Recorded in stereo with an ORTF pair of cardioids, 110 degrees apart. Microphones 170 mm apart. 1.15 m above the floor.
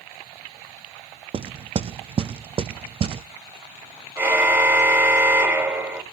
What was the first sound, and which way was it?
Knocking, 35° right.